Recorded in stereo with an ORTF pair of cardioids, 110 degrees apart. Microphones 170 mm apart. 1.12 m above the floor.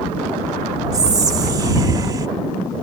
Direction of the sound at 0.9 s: 25° right.